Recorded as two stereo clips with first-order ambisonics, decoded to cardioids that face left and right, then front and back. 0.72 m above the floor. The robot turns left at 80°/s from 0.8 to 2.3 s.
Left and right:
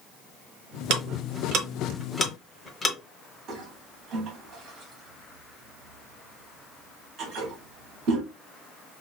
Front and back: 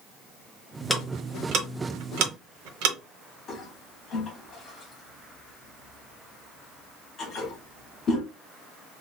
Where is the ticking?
80° right, 0.9 m; by 3.0 s 170° left, 0.9 m.